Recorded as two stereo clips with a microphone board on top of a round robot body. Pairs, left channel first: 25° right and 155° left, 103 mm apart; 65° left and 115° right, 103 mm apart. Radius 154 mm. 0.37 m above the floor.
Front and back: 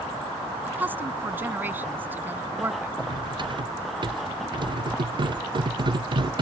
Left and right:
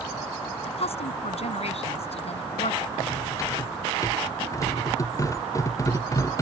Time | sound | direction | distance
0.7 | a woman speaking | 85° left | ?
3.0 | cutlery clinking | 120° left | ?